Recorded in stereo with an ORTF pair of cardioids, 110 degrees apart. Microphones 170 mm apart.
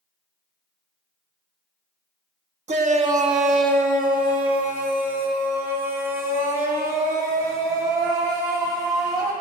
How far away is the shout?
About 1.5 m.